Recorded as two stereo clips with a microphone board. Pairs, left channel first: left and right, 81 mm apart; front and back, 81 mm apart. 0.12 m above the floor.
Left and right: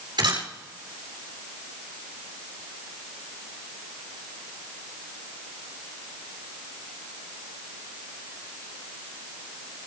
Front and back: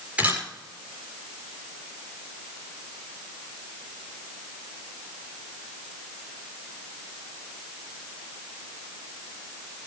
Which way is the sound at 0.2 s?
110° right.